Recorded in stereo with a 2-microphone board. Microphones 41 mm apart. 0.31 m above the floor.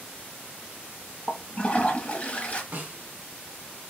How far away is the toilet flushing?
About 0.9 m.